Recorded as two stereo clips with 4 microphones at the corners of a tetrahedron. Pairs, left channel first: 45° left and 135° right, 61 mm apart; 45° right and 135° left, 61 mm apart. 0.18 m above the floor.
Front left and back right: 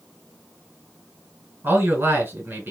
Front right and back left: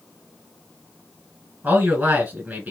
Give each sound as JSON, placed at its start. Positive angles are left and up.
{"t": 1.6, "sound": "a man speaking", "azimuth_deg": 180, "distance_m": 2.0}